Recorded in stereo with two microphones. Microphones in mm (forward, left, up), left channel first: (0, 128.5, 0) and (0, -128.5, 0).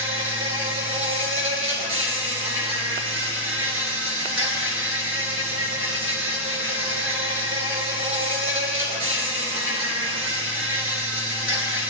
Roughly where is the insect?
Right.